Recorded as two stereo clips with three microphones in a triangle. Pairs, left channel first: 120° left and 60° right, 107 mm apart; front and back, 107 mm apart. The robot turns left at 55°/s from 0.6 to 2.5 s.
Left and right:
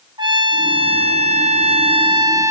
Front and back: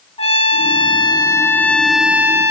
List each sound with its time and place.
0.2 s a trumpet: 20° right, 0.8 m; by 2.5 s 125° right, 0.8 m